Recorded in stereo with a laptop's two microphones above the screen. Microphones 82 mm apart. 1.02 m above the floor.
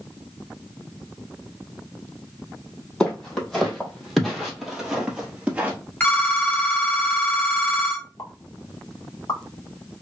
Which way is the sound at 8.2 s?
50° left (ahead or behind).